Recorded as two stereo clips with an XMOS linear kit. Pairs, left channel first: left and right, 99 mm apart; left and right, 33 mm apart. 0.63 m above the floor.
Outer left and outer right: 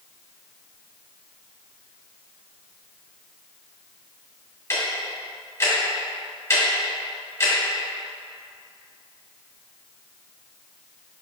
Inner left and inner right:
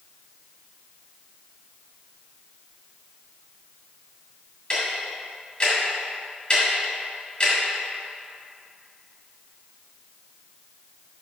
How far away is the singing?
I don't hear singing.